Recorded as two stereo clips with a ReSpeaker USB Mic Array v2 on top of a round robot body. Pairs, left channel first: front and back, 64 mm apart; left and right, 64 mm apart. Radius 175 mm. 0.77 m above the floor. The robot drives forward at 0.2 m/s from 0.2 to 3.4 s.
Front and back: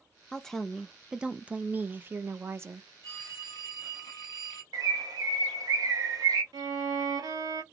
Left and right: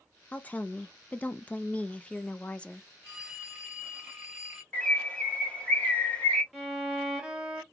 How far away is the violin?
About 1.0 m.